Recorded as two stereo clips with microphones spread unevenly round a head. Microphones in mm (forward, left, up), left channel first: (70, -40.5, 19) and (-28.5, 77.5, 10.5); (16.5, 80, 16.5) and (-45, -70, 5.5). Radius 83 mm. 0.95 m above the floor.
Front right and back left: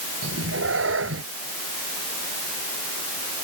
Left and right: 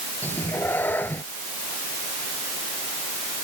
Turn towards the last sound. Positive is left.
turn(degrees=145)